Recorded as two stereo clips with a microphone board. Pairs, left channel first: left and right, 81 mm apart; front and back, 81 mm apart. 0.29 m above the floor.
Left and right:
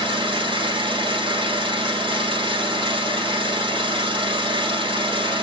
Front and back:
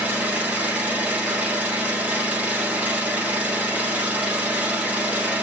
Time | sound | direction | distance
0.0 | an engine running | 105° right | 3.5 m